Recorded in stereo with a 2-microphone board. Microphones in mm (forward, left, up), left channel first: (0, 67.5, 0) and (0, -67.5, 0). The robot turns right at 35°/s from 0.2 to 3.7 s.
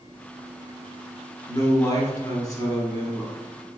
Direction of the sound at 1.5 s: 25° left (ahead or behind).